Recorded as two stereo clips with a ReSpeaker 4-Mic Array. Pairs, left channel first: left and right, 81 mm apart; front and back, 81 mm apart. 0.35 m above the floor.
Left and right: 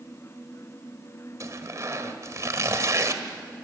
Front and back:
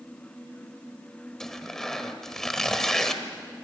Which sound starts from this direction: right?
Tearing paper, at 1.4 s.